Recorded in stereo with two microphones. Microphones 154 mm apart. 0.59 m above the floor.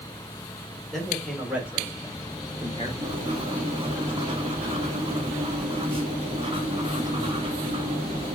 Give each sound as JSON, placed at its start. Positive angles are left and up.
{"t": 0.9, "sound": "a man speaking", "side_deg": 0, "distance_m": 2.5}
{"t": 3.0, "sound": "writing", "side_deg": -35, "distance_m": 0.9}